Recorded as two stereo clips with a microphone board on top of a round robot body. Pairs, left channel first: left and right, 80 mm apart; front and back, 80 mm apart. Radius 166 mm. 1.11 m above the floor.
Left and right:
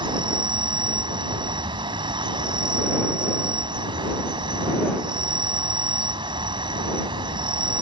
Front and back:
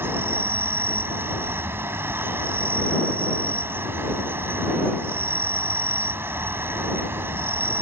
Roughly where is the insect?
Behind right.